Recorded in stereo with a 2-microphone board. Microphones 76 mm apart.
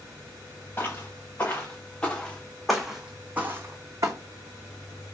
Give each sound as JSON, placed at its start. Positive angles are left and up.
{"t": 0.8, "sound": "footsteps", "side_deg": 35, "distance_m": 1.5}